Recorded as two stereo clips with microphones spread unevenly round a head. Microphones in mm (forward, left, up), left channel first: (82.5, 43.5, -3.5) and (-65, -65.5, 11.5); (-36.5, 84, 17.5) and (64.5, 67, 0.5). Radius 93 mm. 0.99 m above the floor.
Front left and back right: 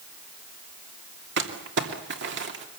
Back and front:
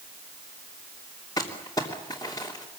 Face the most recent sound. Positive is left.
turn(degrees=-115)